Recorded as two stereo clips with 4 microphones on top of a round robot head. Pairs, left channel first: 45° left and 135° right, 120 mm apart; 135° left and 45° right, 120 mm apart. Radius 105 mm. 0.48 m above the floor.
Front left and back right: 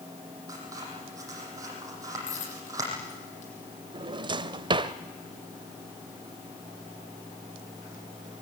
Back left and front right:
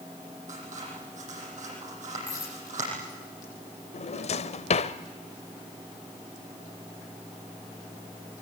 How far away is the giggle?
No giggle in this recording.